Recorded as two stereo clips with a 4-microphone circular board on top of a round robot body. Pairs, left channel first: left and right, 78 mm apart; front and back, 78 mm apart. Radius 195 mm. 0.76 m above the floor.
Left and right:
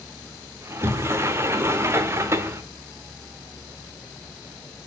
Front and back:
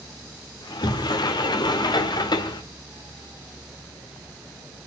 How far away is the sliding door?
About 1.1 m.